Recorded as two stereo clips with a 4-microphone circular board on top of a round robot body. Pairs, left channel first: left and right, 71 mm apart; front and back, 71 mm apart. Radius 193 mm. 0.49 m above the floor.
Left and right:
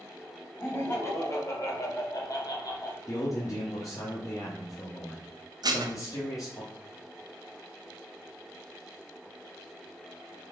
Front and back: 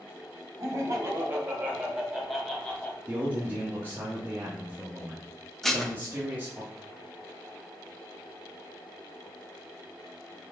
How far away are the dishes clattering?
About 0.8 m.